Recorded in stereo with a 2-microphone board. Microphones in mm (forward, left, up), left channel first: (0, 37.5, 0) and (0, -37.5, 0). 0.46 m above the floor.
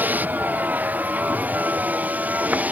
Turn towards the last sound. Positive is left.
turn(degrees=-20)  # may be behind; listen again after turning